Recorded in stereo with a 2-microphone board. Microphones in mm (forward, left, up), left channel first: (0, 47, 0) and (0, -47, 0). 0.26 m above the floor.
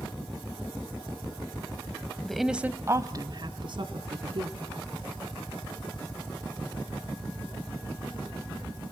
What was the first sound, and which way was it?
A woman speaking, 5° left (ahead or behind).